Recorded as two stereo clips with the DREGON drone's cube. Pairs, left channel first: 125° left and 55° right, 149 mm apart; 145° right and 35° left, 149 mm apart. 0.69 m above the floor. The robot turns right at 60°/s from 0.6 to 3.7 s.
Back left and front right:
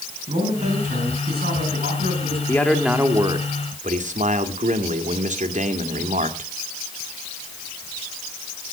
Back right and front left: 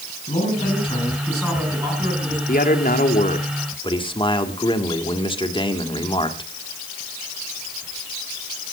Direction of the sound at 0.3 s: 105° right.